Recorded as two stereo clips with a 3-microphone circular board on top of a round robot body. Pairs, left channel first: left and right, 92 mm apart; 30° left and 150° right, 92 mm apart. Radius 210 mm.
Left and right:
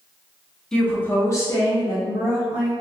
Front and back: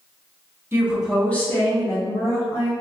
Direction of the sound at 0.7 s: 170° left.